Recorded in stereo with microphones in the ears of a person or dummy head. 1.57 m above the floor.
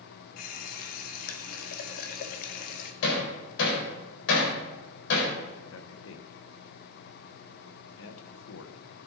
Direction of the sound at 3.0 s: 70° left (ahead or behind).